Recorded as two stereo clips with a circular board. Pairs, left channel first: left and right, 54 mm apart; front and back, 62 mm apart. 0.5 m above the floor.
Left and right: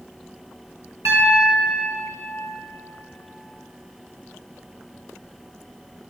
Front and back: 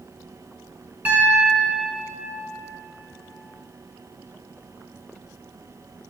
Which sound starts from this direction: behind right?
A piano, at 1.1 s.